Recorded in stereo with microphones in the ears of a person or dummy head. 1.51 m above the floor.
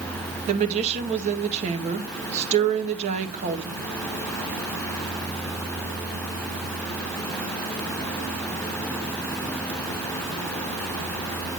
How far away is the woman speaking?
About 1.9 m.